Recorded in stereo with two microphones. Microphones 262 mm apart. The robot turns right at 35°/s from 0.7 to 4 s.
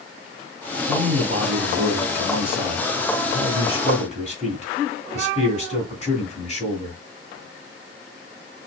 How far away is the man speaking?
About 1.9 m.